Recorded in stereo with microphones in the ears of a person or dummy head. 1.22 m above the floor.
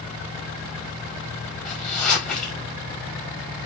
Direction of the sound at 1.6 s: Centre (ahead or behind).